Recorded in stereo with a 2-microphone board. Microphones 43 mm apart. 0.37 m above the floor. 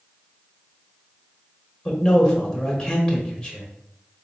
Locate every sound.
1.9 s a man speaking: 15° left (ahead or behind), 1.3 m